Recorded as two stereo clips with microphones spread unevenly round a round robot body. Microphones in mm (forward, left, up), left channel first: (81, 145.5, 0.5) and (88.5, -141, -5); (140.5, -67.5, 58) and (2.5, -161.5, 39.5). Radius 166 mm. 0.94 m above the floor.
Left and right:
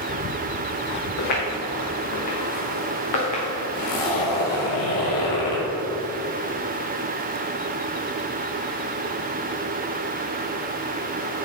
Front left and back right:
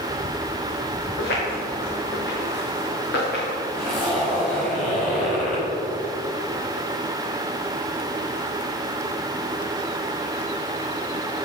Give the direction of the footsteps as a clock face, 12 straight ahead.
10 o'clock.